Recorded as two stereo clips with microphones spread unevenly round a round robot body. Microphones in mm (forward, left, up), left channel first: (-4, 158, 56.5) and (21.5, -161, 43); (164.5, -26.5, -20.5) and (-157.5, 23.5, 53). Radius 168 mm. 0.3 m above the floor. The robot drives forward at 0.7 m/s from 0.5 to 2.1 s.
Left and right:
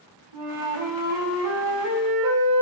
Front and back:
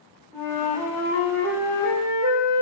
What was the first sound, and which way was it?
A flute, 105° right.